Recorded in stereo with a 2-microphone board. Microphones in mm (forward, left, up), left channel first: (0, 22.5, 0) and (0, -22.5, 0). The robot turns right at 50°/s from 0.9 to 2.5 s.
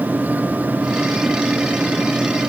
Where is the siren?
I don't hear a siren.